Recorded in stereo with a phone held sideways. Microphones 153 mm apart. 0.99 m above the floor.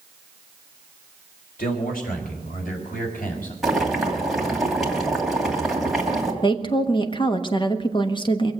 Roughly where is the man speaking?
Left.